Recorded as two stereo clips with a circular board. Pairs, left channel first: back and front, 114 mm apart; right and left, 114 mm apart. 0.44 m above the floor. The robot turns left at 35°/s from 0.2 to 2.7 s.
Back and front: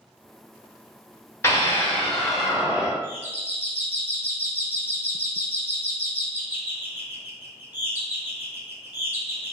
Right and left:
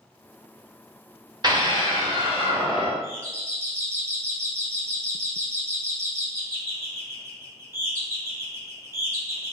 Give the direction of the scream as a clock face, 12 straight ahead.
8 o'clock.